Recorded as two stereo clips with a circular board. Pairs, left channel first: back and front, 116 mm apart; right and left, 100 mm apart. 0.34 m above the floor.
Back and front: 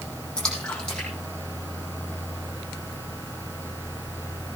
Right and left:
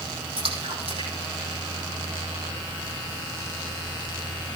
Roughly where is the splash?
Left.